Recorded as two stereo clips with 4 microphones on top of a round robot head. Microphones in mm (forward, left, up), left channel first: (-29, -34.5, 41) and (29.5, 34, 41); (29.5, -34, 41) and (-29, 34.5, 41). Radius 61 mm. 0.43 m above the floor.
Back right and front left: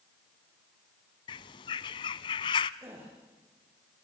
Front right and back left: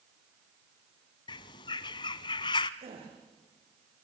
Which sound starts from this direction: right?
A bird, at 1.3 s.